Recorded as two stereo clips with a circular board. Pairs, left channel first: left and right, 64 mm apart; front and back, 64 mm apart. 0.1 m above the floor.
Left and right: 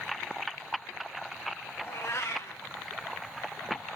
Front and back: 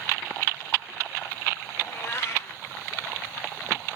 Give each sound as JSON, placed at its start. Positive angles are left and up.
{"t": 1.8, "sound": "a cat meowing", "azimuth_deg": 45, "distance_m": 3.5}